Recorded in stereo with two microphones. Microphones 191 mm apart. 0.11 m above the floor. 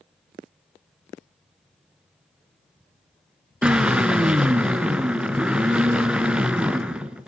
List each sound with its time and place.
3.6 s a drill: 5° right (ahead or behind), 1.4 m